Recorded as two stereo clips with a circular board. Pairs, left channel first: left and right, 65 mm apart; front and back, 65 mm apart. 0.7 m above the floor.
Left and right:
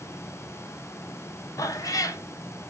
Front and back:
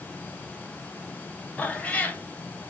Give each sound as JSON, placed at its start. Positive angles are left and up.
{"t": 1.6, "sound": "a cat meowing", "azimuth_deg": 70, "distance_m": 0.5}